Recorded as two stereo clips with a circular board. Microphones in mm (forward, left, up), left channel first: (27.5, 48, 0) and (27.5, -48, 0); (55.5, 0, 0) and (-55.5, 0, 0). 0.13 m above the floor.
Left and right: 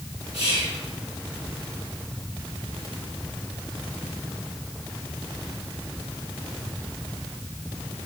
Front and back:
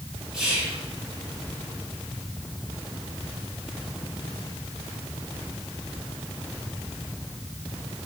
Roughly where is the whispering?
Right.